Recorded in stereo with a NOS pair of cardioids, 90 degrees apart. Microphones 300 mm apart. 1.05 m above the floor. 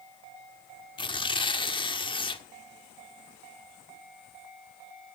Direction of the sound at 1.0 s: 15° left.